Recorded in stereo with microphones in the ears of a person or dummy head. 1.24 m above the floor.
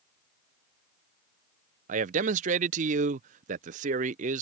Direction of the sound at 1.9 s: 45° right (ahead or behind).